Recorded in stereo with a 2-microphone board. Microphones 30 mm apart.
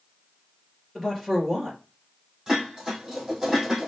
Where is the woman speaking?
5° right (ahead or behind), 2.5 m.